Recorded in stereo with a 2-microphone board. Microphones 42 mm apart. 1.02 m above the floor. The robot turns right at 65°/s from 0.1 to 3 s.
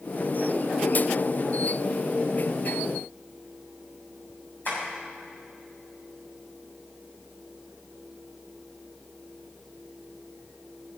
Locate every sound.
4.7 s tapping: 55° left (ahead or behind), 6.5 m